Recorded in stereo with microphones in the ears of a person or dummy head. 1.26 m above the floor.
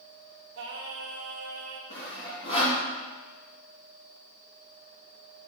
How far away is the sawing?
About 2.5 m.